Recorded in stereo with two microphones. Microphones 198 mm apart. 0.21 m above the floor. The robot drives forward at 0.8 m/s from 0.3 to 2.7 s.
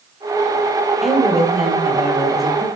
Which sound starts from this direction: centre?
A woman speaking, at 1.0 s.